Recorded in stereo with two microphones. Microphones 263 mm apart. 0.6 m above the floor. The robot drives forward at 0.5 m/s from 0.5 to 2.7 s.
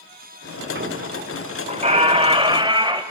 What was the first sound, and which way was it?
A squeak, 45° right (ahead or behind).